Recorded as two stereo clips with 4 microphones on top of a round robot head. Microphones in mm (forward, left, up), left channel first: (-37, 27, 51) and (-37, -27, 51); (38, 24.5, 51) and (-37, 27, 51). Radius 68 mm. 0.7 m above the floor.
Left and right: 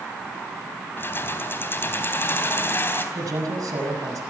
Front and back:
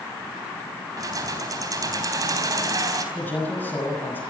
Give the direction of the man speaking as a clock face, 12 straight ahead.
2 o'clock.